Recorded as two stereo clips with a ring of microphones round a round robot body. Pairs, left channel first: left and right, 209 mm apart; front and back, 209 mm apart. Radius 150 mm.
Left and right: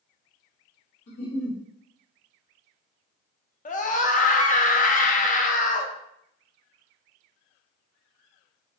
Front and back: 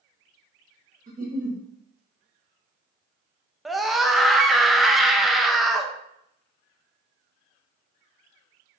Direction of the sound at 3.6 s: 90° left.